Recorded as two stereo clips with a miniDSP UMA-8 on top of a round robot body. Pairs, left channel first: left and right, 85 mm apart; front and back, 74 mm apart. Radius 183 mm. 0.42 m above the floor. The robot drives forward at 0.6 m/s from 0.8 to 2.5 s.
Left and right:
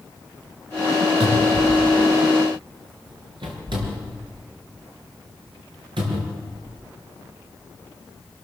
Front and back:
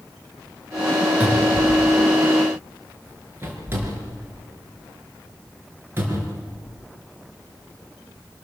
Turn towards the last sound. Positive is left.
turn(degrees=-120)